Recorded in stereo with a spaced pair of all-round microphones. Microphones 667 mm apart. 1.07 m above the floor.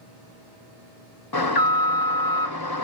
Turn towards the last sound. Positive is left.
turn(degrees=35)  # may be behind; listen again after turning